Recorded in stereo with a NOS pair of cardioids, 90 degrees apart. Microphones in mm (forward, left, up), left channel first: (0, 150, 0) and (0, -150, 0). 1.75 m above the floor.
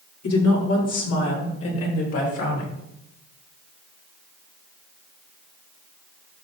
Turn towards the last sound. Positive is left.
turn(degrees=50)